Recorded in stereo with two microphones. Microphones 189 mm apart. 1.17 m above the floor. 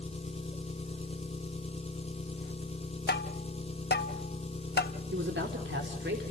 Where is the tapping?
65° left (ahead or behind), 1.3 m.